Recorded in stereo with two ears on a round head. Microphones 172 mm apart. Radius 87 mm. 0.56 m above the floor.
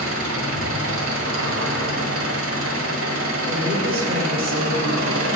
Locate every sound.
0.0 s an engine running: 75° right (ahead or behind), 1.8 m
3.5 s a woman speaking: 50° right (ahead or behind), 1.7 m